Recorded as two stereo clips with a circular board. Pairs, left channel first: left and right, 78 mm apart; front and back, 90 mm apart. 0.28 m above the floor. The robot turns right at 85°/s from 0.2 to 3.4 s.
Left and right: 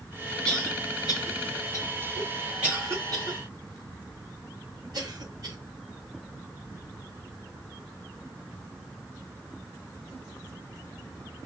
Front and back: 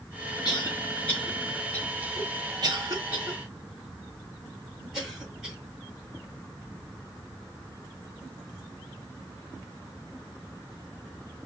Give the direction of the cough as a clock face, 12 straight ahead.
12 o'clock.